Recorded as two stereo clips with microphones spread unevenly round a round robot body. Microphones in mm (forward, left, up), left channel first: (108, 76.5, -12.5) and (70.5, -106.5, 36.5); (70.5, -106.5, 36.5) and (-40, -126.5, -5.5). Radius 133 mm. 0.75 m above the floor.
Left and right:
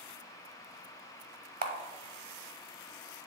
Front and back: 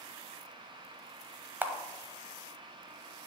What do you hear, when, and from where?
1.6 s a camera shutter: 85° right, 0.9 m